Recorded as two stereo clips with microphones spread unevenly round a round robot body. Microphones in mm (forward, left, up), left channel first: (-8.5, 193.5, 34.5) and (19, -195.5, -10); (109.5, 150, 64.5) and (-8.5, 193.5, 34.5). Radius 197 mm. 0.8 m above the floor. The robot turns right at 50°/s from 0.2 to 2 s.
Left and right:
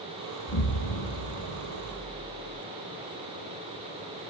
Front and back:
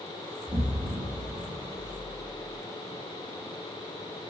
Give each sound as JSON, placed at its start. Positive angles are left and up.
{"t": 0.5, "sound": "an explosion", "azimuth_deg": 65, "distance_m": 0.6}